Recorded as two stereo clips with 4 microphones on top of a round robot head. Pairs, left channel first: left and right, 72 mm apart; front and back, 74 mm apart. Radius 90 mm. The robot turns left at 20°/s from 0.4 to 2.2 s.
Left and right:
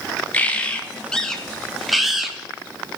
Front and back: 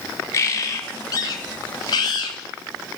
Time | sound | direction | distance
0.3 | a bird | 30° left | 0.5 m